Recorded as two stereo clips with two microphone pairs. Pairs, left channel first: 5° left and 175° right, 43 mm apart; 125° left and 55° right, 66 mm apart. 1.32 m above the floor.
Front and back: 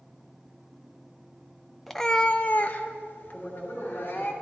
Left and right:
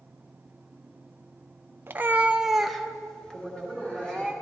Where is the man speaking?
40° left, 3.5 m.